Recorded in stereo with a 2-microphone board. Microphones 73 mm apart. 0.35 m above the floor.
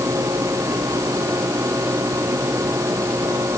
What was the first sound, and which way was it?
Only background noise.